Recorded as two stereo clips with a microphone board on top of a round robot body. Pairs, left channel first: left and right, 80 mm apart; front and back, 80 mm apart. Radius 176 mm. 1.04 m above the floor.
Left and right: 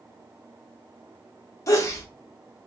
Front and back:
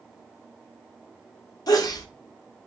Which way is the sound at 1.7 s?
40° left.